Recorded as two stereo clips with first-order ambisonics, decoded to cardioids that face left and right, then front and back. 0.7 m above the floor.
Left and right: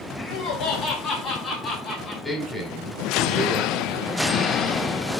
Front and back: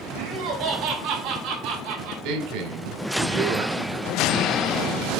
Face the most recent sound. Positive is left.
turn(degrees=175)